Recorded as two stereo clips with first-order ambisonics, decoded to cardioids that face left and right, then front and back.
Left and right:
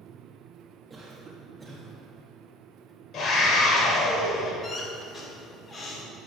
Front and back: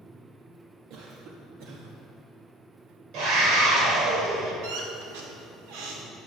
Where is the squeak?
165° left, 1.8 m.